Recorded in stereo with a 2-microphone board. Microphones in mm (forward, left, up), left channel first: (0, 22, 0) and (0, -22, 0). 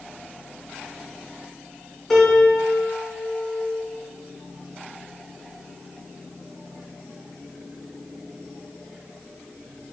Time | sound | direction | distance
2.1 | a piano | 5° left (ahead or behind) | 0.9 m